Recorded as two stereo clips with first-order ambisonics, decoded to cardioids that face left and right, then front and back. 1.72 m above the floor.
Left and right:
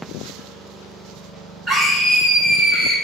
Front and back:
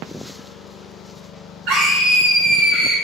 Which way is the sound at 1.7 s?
Straight behind.